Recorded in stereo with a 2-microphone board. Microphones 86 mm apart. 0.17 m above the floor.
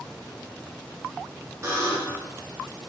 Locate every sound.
1.6 s a buzzer: 35° right (ahead or behind), 1.2 m